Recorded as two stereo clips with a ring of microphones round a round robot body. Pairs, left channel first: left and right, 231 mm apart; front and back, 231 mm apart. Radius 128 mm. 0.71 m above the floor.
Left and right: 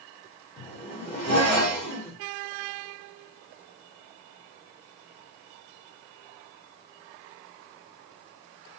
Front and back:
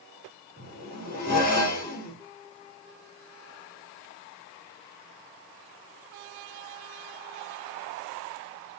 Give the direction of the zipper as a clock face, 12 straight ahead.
11 o'clock.